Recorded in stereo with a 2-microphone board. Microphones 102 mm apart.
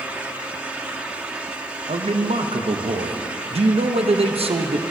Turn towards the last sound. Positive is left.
turn(degrees=-70)  # may be behind; listen again after turning